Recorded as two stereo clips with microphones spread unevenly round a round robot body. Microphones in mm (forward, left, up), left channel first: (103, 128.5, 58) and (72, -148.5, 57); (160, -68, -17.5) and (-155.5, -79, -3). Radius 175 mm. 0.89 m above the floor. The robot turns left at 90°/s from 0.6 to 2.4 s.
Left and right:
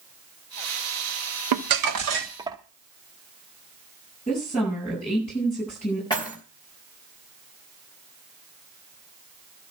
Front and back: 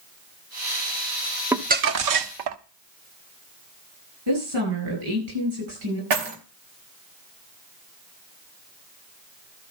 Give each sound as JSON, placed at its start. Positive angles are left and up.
{"t": 1.5, "sound": "crumpling", "azimuth_deg": -95, "distance_m": 1.0}
{"t": 4.3, "sound": "a woman speaking", "azimuth_deg": 160, "distance_m": 8.5}
{"t": 6.1, "sound": "keys jangling", "azimuth_deg": 160, "distance_m": 2.5}